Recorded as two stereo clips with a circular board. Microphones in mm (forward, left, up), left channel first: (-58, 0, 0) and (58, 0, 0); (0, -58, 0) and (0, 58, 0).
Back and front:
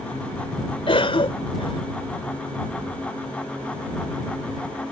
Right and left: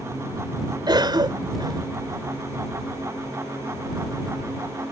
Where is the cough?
140° left.